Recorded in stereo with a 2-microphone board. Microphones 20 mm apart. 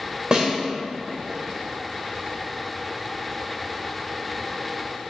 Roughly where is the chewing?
No chewing in this recording.